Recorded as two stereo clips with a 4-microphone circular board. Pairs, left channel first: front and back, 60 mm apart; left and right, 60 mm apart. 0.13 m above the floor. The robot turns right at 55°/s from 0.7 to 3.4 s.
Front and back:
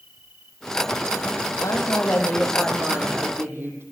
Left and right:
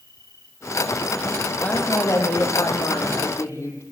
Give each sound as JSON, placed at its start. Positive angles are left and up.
{"t": 0.0, "sound": "an insect", "azimuth_deg": 120, "distance_m": 4.0}
{"t": 1.6, "sound": "a woman speaking", "azimuth_deg": 30, "distance_m": 6.5}